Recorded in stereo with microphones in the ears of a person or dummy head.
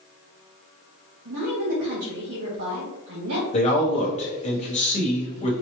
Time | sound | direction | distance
1.2 | a woman speaking | 75° right (ahead or behind) | 1.8 m
3.5 | a man speaking | 35° left (ahead or behind) | 1.0 m